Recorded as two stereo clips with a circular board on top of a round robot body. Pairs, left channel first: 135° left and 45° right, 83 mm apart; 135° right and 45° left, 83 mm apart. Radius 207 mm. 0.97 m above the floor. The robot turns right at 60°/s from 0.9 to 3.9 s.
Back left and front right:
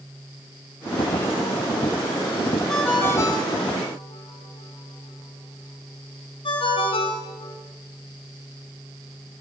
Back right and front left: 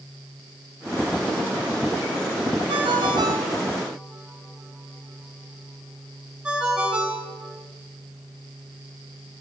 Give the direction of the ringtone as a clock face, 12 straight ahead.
10 o'clock.